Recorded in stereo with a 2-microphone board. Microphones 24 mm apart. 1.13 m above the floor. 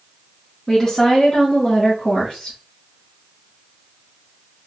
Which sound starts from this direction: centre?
A woman speaking, at 0.7 s.